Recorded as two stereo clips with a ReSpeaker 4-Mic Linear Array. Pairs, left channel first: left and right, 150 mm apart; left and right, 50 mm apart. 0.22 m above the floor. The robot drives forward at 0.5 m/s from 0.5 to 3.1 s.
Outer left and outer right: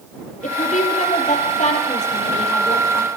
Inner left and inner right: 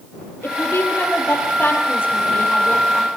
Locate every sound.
0.4 s a woman speaking: 55° left (ahead or behind), 5.5 m; by 3.1 s 45° left (ahead or behind), 6.5 m